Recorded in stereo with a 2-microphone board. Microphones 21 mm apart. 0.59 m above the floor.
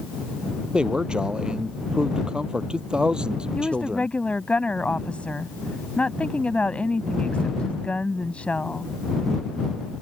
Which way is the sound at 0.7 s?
40° right (ahead or behind).